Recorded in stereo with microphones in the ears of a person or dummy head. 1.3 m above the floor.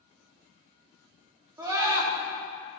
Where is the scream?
20° right (ahead or behind), 2.5 m.